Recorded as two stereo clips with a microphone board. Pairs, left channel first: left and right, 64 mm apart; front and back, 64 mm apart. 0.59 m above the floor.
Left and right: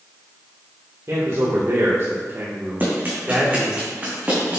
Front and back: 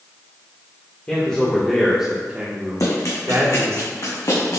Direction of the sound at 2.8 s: 30° right.